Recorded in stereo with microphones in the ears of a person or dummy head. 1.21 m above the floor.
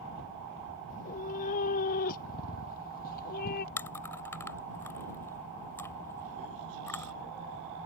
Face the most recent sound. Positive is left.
turn(degrees=15)  # may be behind; listen again after turning